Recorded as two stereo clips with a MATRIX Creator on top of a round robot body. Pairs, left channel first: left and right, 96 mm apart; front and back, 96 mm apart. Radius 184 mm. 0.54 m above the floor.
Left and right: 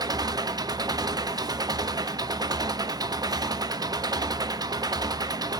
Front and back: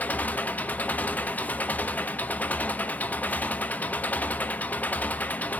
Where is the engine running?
65° right, 0.8 m.